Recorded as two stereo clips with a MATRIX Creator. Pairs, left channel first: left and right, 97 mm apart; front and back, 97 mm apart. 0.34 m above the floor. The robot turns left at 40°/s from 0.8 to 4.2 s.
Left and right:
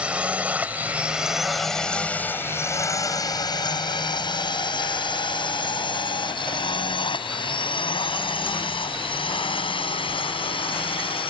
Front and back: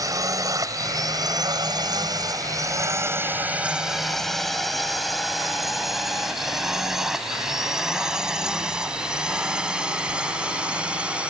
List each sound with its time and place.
0.0 s a drone: 160° right; by 11.3 s 100° left